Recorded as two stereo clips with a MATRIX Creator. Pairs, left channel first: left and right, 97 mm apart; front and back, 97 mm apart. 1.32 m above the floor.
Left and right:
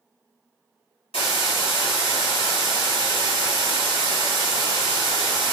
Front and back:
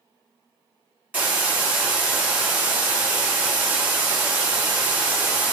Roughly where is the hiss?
Left.